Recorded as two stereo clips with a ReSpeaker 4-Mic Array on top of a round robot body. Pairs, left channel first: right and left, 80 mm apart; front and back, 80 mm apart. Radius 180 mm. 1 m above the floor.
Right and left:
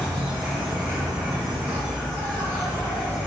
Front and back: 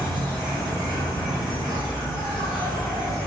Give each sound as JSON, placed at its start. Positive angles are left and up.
{"t": 0.0, "sound": "an insect", "azimuth_deg": -175, "distance_m": 0.9}